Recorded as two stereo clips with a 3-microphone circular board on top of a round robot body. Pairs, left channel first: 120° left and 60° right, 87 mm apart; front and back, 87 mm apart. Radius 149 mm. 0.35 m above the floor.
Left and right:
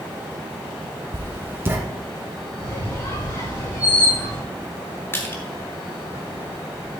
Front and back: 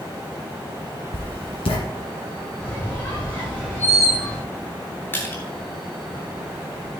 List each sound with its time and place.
1.1 s writing: 5° left, 1.7 m
2.6 s a squeak: 70° left, 6 m
5.1 s crushing: 60° left, 3.5 m